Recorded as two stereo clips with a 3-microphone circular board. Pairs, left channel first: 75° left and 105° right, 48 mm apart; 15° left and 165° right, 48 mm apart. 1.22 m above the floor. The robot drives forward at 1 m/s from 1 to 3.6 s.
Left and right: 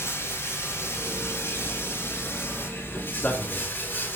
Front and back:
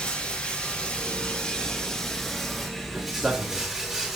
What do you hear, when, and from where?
0.0 s running water: 80° left, 4.5 m; by 4.2 s 115° left, 4.5 m
3.1 s a man speaking: 130° left, 2 m; by 3.7 s 135° left, 2.5 m